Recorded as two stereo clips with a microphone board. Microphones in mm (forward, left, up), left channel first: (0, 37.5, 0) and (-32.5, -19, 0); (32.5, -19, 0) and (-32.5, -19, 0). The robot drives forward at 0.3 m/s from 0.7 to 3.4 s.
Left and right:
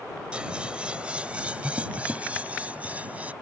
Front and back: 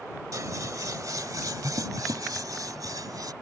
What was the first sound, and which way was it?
Scissors, 170° left.